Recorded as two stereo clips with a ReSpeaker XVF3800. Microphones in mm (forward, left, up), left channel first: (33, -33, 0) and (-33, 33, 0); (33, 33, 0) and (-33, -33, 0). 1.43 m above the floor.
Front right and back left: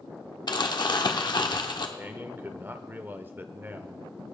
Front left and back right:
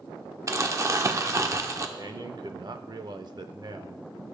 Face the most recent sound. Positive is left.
turn(degrees=-160)